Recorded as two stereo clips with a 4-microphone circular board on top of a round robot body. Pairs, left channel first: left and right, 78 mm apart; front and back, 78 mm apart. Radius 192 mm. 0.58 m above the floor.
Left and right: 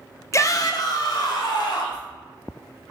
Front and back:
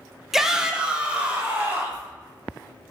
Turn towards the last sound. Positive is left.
turn(degrees=110)